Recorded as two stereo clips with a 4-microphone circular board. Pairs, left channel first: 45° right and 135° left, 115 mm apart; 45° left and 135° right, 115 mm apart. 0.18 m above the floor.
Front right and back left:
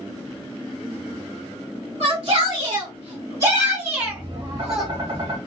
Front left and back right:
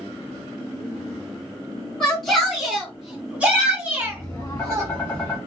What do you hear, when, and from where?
2.0 s a shout: 130° left, 1.6 m; by 4.9 s 135° right, 1.3 m
4.0 s tapping: 105° left, 1.8 m